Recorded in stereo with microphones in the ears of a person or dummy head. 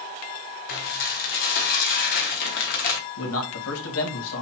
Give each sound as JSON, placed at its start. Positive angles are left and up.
{"t": 0.7, "sound": "dishes clattering", "side_deg": 45, "distance_m": 0.9}
{"t": 3.2, "sound": "a man speaking", "side_deg": 75, "distance_m": 2.0}